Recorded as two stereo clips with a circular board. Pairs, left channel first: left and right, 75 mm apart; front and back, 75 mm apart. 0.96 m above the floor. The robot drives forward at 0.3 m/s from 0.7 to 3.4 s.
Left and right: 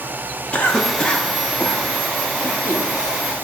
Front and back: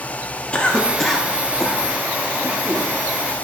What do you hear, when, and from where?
0.5 s a cough: 55° left, 0.9 m; by 2.9 s 150° left, 1.0 m